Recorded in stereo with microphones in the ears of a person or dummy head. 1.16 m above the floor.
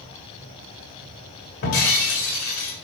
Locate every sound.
1.6 s breaking glass: 50° left (ahead or behind), 3 m